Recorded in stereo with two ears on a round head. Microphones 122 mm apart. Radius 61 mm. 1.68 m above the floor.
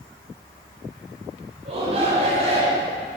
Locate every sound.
1.6 s a shout: 50° right (ahead or behind), 9 m; by 2.9 s 55° right (ahead or behind), 9 m